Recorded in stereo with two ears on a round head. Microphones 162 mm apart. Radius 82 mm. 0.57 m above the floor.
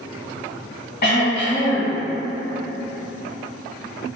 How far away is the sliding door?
I don't hear a sliding door.